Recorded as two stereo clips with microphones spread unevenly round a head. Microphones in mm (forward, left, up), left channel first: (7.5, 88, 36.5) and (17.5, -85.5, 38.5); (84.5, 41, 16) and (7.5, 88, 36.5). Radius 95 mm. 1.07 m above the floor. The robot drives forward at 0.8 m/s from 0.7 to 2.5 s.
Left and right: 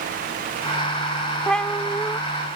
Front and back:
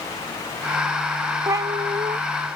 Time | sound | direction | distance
1.5 | a cat meowing | straight behind | ?